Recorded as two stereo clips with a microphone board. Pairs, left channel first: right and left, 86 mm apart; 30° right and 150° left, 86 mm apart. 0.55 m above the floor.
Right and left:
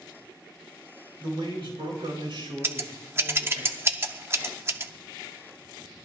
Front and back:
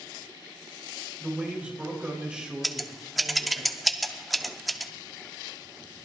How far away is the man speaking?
About 7.5 m.